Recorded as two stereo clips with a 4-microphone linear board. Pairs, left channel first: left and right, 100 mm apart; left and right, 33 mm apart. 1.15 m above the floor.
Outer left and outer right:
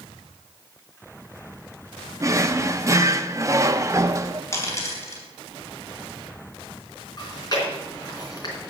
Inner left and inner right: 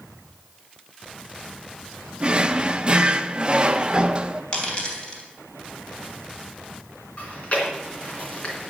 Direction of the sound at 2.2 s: 30° right (ahead or behind).